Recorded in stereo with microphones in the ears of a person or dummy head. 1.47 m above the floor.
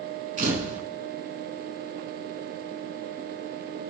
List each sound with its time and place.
0.4 s a camera shutter: 45° right (ahead or behind), 4 m